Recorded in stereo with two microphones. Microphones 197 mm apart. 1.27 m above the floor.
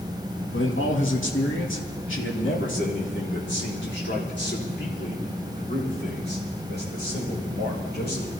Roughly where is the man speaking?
Left.